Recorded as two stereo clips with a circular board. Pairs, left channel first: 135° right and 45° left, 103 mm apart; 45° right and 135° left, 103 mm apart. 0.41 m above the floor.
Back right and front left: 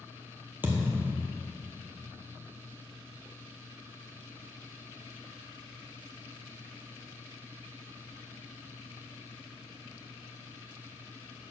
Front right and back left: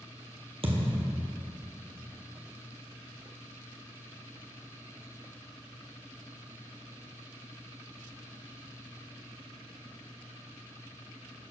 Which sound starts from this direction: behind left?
A thud, at 0.6 s.